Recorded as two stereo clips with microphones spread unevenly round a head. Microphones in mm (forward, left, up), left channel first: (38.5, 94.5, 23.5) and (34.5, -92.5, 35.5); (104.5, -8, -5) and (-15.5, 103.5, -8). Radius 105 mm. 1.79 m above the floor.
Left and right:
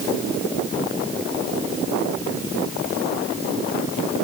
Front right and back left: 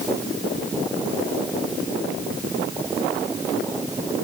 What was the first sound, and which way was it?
Only background noise.